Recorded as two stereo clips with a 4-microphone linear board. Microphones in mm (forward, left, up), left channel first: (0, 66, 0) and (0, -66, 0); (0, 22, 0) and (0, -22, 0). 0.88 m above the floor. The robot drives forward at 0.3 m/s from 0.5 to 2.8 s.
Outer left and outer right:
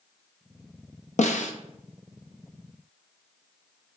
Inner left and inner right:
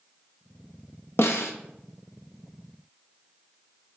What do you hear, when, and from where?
1.2 s a snare drum: 65° left (ahead or behind), 0.6 m; by 1.5 s 70° left (ahead or behind), 0.6 m